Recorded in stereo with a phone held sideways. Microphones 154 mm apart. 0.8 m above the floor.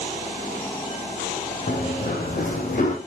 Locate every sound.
1.7 s running footsteps: 70° left (ahead or behind), 2.5 m; by 3.0 s 55° left (ahead or behind), 2.0 m